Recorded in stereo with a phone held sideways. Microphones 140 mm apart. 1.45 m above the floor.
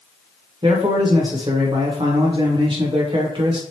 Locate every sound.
0.6 s a man speaking: 35° right (ahead or behind), 1.2 m